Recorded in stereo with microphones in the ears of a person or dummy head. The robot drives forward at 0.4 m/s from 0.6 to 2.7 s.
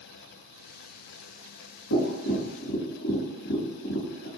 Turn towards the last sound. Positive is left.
turn(degrees=70)  # may be behind; listen again after turning